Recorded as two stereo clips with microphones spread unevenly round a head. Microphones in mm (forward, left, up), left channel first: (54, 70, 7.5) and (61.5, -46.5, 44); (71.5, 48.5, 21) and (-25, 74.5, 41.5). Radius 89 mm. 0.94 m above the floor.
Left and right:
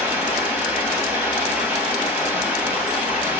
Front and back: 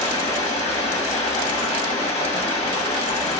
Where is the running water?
25° right, 1.2 m.